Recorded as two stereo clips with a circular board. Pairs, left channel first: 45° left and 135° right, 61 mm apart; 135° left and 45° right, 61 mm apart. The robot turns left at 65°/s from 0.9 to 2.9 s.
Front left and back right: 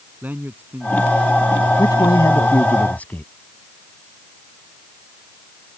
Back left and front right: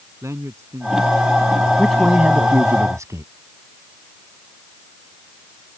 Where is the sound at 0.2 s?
75° right; by 2.6 s 175° left.